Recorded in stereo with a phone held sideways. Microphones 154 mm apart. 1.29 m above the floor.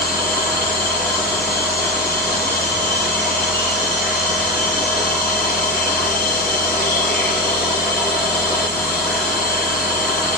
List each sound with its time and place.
0.0 s a machine running: 15° left (ahead or behind), 6.5 m